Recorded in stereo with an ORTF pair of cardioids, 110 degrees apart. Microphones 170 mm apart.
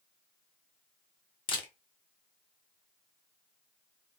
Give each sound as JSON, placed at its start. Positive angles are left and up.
{"t": 1.5, "sound": "a camera shutter", "azimuth_deg": 30, "distance_m": 0.8}